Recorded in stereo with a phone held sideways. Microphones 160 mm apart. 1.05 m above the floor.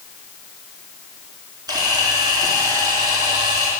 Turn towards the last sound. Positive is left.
turn(degrees=-25)  # may be behind; listen again after turning